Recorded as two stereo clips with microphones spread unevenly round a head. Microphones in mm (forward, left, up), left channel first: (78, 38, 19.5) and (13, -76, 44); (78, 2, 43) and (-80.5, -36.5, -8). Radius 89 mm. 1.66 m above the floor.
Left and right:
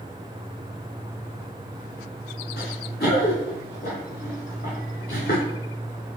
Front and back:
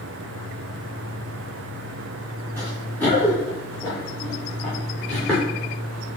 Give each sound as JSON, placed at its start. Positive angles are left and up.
{"t": 2.6, "sound": "running footsteps", "azimuth_deg": 90, "distance_m": 7.5}